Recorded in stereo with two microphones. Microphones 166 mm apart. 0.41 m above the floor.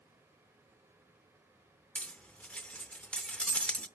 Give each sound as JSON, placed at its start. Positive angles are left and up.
{"t": 1.9, "sound": "cutlery clinking", "side_deg": 5, "distance_m": 0.5}